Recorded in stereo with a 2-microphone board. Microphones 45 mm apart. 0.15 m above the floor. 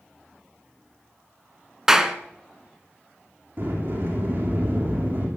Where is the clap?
10° right (ahead or behind), 1.4 m.